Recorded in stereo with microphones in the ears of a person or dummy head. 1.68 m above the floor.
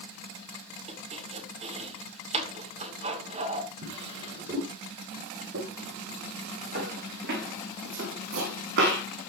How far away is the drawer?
About 6.5 m.